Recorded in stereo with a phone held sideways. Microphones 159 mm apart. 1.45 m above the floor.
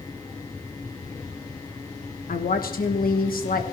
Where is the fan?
20° left (ahead or behind), 1.8 m.